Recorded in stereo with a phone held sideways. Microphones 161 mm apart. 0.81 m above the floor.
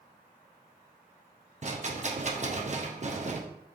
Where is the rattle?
45° right (ahead or behind), 0.5 m.